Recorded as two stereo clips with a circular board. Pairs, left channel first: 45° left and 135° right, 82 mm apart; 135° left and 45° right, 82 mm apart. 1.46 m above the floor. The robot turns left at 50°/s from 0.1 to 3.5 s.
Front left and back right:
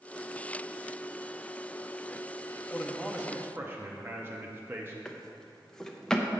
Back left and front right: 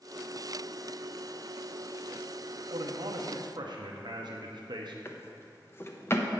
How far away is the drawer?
About 0.6 m.